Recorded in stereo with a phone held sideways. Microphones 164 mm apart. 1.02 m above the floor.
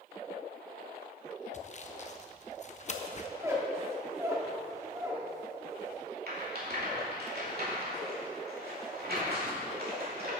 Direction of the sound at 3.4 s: 15° right (ahead or behind).